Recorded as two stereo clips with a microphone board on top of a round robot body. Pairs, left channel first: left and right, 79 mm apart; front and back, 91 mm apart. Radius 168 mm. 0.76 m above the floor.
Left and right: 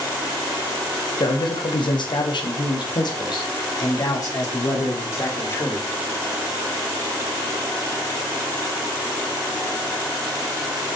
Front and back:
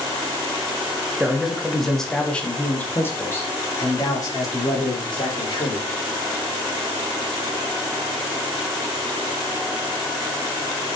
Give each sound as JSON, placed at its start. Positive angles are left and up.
{"t": 1.2, "sound": "a man speaking", "azimuth_deg": 100, "distance_m": 1.6}